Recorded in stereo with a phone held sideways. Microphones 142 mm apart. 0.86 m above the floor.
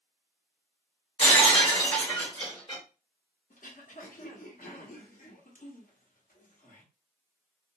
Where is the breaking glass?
35° left (ahead or behind), 1.1 m.